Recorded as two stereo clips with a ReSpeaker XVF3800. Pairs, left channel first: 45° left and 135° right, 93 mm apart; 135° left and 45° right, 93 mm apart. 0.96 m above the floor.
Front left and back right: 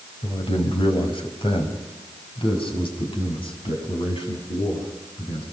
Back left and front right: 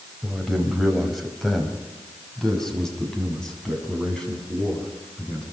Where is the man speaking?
40° left, 4.5 m; by 5.4 s 55° left, 9 m.